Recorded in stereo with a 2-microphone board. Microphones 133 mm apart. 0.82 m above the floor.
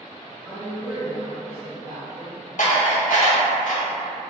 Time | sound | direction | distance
0.5 | a woman speaking | 5° left (ahead or behind) | 0.8 m
2.6 | dishes clattering | 70° left (ahead or behind) | 1.1 m